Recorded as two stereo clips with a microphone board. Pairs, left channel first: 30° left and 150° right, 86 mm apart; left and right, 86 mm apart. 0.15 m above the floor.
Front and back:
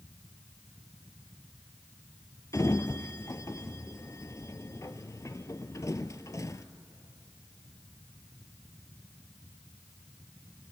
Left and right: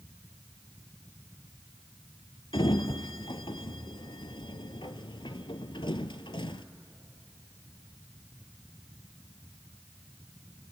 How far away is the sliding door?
About 0.7 m.